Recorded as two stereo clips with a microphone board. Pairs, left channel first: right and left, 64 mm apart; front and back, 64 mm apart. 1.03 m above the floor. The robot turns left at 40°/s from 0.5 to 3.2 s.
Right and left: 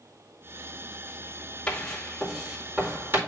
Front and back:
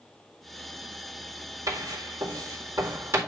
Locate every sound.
1.7 s writing: 160° right, 2 m; by 3.2 s 140° left, 2 m